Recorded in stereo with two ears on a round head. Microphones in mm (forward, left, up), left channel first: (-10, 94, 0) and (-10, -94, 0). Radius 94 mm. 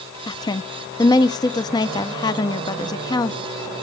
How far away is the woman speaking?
About 0.8 m.